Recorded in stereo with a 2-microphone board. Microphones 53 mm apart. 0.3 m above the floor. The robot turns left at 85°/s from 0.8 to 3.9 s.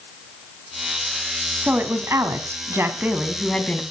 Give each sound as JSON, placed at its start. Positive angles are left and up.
{"t": 1.6, "sound": "a woman speaking", "azimuth_deg": -30, "distance_m": 1.9}